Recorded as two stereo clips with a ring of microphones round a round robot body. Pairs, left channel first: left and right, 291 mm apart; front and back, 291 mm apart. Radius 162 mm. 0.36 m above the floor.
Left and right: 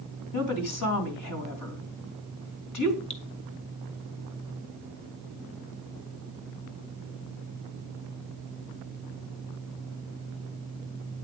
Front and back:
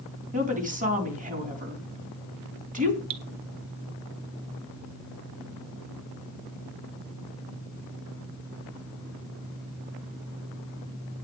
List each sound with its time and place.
0.3 s a woman speaking: 120° left, 3.5 m
3.1 s dripping: 160° left, 1.1 m